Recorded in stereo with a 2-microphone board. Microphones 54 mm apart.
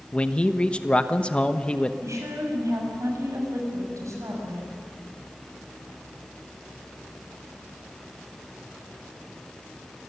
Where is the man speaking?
20° left (ahead or behind), 1.0 m.